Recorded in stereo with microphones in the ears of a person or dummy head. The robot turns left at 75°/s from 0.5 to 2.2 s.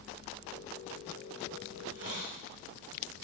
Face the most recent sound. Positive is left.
turn(degrees=-115)